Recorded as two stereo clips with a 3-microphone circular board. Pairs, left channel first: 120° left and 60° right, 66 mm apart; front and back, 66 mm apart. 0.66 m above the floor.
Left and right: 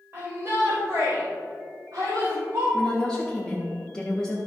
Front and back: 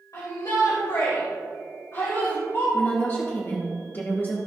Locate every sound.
0.1 s a shout: 15° right, 2.5 m; by 2.6 s 40° right, 4.5 m
2.7 s a woman speaking: 45° left, 1.3 m